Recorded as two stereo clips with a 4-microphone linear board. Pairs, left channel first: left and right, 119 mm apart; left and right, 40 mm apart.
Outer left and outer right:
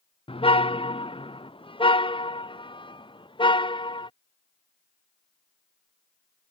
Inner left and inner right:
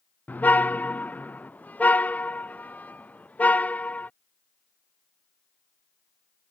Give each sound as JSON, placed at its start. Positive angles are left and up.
{"t": 0.3, "sound": "a car horn", "side_deg": 50}